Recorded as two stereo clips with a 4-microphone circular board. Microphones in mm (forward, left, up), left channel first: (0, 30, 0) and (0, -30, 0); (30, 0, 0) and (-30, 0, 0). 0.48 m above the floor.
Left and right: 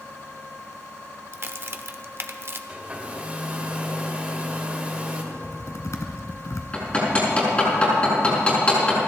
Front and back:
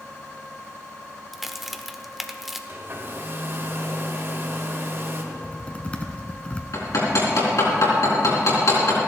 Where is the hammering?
25° left, 4 m.